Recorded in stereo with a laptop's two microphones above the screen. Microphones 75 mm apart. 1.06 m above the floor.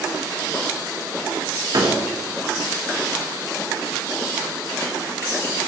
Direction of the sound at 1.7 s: 60° right (ahead or behind).